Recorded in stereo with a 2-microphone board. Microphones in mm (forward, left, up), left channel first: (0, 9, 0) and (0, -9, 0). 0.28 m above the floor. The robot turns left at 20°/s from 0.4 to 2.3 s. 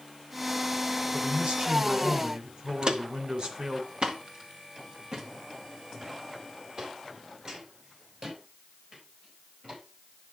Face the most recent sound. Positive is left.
turn(degrees=-45)  # may be behind; listen again after turning